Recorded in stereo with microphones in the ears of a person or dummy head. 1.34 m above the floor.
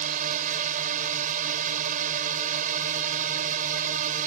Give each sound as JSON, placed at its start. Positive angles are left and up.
{"t": 0.0, "sound": "a drone", "side_deg": -50}